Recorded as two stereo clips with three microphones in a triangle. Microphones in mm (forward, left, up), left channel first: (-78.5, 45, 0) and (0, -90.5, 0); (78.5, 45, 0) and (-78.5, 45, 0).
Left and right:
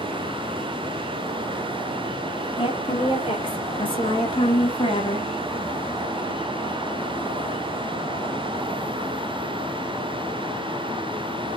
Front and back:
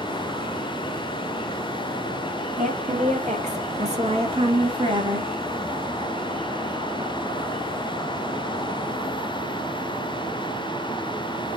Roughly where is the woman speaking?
Behind.